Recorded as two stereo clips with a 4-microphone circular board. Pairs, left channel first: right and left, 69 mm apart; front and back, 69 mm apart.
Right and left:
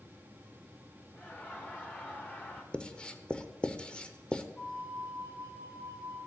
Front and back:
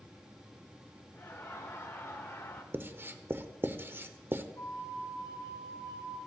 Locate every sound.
1.2 s laughter: 40° right, 0.9 m
2.7 s writing: 155° right, 0.6 m
4.6 s a flute: 60° right, 2.5 m